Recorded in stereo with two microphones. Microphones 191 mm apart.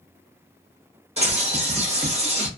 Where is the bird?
30° right (ahead or behind), 1.0 m.